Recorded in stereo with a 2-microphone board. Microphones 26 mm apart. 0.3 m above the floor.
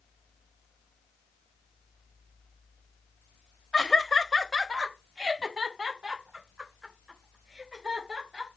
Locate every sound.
3.7 s laughter: 30° left (ahead or behind), 1.2 m; by 8.5 s 25° right (ahead or behind), 5 m